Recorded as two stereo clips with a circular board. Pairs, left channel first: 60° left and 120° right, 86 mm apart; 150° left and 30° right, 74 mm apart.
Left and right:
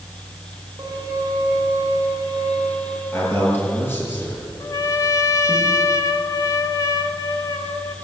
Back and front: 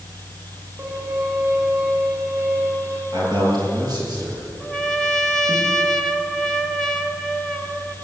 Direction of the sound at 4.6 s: 70° left.